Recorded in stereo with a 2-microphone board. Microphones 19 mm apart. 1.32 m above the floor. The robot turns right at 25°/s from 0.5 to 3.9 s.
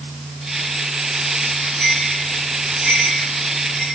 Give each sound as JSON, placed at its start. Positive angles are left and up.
{"t": 1.8, "sound": "a bell", "side_deg": -55, "distance_m": 7.5}